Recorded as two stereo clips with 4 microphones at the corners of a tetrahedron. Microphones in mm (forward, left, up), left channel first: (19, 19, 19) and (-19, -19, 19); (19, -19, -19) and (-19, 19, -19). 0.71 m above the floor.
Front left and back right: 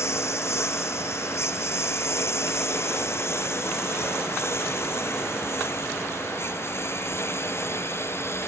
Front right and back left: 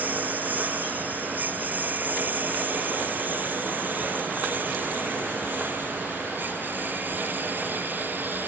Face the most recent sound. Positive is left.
turn(degrees=85)